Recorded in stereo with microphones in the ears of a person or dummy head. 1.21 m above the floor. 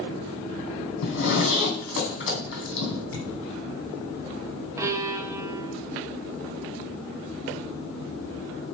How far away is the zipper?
About 3 m.